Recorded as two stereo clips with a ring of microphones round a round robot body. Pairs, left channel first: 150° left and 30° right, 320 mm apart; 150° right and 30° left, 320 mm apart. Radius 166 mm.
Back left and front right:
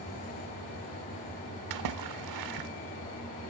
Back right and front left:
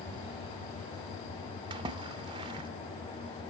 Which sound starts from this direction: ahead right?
A splash, at 1.7 s.